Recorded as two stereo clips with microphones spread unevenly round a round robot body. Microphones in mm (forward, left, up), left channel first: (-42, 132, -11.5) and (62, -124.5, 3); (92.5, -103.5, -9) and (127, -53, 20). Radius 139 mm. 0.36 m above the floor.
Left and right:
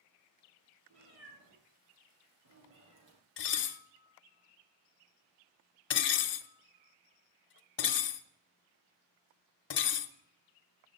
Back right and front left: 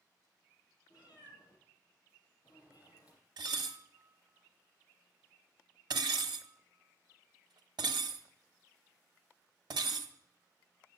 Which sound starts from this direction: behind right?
A cat meowing, at 0.9 s.